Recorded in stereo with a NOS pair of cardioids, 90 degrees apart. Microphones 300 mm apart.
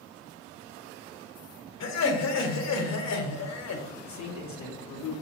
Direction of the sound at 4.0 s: 65° left.